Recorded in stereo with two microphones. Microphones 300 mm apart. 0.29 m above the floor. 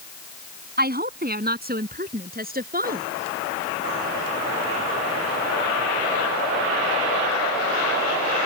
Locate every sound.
0.8 s a woman speaking: 30° right (ahead or behind)